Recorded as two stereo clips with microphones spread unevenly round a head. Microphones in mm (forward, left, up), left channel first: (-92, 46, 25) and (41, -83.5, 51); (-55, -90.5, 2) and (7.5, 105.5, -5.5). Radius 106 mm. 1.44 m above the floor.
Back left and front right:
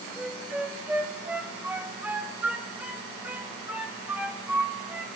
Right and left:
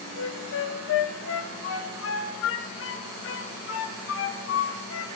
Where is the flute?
130° right, 1.3 m.